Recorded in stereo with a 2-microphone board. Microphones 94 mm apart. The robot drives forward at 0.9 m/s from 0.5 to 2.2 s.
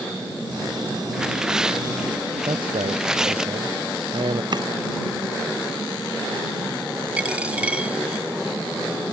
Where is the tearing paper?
10° right (ahead or behind); by 3.5 s 5° right (ahead or behind).